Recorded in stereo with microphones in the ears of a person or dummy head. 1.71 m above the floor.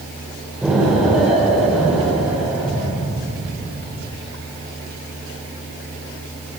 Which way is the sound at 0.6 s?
5° right (ahead or behind).